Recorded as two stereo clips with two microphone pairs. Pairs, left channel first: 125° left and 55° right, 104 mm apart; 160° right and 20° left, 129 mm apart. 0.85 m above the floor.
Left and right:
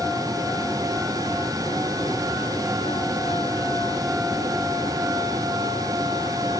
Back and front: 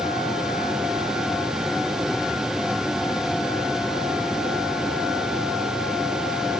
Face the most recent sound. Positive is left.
No sound to turn to.